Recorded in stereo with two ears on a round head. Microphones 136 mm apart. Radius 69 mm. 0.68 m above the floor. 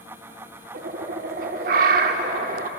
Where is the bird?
65° right (ahead or behind), 0.7 m.